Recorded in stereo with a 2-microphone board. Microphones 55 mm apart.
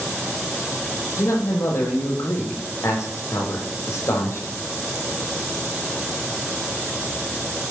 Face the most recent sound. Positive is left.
turn(degrees=65)  # may be behind; listen again after turning